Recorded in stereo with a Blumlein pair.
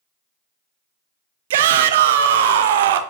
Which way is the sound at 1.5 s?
55° right.